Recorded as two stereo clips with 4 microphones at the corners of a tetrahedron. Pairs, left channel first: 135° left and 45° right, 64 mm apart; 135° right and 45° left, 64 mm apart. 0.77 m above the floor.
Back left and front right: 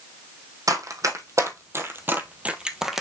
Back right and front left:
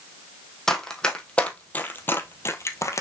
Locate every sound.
0.7 s running footsteps: 55° right, 1.7 m; by 3.0 s 130° right, 1.2 m